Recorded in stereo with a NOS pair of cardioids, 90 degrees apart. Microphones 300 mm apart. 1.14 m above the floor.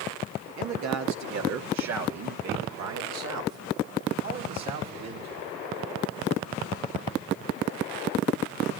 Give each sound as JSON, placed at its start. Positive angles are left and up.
{"t": 0.6, "sound": "a man speaking", "azimuth_deg": -70, "distance_m": 2.5}